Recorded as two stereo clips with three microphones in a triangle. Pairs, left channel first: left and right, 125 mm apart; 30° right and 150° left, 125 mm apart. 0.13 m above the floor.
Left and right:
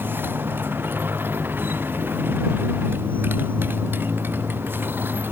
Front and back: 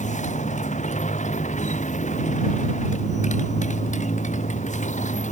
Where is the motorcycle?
15° right.